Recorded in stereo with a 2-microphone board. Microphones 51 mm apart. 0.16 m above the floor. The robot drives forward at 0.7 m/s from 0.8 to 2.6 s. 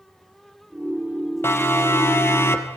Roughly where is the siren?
Left.